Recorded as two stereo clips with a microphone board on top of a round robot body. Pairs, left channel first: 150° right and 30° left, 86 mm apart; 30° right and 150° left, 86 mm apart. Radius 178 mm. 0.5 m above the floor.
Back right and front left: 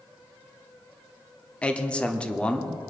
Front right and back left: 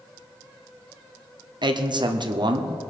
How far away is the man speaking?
About 1.3 m.